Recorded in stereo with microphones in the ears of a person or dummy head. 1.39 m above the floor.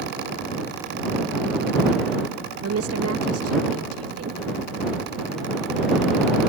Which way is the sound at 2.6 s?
80° right.